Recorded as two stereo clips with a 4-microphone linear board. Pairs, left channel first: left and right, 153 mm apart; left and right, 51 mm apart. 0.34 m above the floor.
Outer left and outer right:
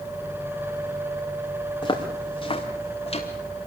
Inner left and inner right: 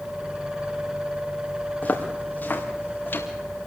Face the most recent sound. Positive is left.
turn(degrees=40)  # may be behind; listen again after turning